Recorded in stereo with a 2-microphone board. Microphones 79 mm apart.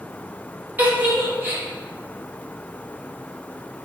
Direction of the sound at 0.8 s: 20° right (ahead or behind).